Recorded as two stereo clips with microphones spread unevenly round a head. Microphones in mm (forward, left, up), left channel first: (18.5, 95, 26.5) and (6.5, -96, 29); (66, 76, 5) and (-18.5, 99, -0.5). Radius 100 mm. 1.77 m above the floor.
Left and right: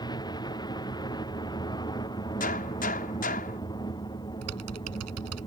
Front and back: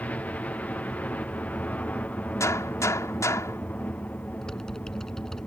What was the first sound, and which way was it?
A helicopter, 40° left.